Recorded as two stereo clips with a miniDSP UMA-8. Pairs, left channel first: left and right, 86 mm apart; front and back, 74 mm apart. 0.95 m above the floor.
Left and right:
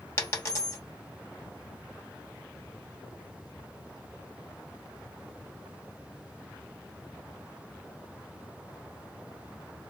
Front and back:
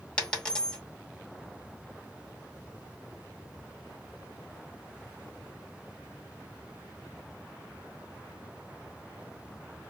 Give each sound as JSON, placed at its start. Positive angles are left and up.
{"t": 0.2, "sound": "a dropped coin", "azimuth_deg": 65, "distance_m": 0.7}